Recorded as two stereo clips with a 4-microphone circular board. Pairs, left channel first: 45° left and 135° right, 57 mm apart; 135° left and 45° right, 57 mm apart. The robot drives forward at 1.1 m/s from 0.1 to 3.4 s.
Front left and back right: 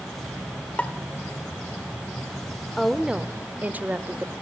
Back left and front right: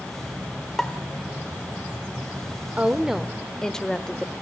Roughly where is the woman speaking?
Ahead right.